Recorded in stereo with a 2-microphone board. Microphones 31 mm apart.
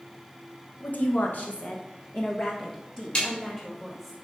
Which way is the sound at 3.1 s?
35° left (ahead or behind).